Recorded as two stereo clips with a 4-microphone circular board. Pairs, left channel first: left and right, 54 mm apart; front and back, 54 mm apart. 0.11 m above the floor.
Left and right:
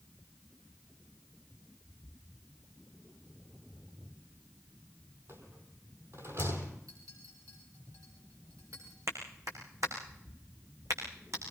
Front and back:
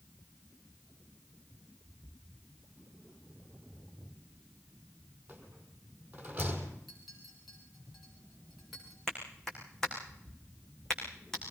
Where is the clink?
90° right, 8.5 m.